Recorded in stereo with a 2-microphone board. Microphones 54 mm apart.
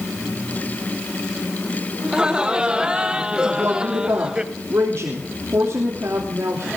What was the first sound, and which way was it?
Laughter, 15° right (ahead or behind).